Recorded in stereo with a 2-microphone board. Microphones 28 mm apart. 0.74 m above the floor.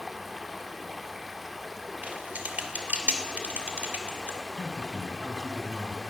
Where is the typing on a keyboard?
70° right (ahead or behind), 2.5 m.